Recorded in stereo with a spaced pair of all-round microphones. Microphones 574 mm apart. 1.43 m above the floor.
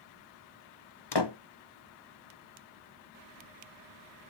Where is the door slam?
45° left (ahead or behind), 0.8 m.